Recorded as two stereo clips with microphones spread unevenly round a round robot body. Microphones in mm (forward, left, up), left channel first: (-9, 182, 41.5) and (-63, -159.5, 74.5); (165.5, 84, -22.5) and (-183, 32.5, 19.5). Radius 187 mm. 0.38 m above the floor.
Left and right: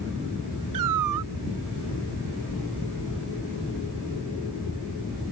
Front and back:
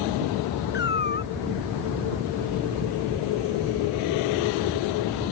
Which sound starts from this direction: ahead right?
A cat meowing, at 0.7 s.